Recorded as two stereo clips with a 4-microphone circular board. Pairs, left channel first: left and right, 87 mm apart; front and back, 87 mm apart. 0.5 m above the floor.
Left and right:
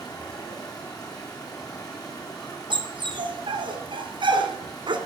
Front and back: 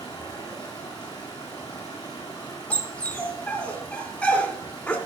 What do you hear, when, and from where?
0.0 s running water: 45° left, 3.5 m
2.7 s a dog barking: 75° right, 1.9 m